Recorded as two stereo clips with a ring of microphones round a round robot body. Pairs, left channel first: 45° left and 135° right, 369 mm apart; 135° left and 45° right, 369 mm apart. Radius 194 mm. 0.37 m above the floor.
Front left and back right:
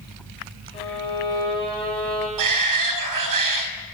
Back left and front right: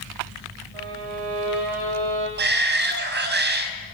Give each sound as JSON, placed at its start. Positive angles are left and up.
{"t": 0.7, "sound": "a violin", "azimuth_deg": -30, "distance_m": 7.0}
{"t": 2.4, "sound": "a shout", "azimuth_deg": -105, "distance_m": 3.5}